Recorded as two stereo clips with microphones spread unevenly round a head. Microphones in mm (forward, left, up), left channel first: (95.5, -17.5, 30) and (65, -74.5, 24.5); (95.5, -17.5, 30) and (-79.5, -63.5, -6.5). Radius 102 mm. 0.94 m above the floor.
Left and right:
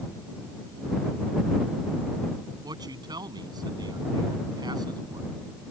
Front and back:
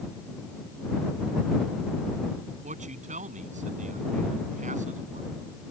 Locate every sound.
2.6 s a man speaking: 115° right